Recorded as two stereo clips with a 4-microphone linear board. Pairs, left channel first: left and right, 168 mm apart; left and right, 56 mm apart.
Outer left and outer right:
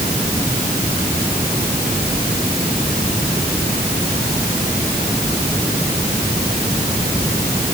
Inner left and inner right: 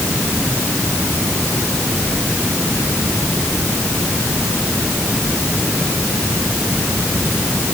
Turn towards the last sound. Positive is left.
No sound to turn to.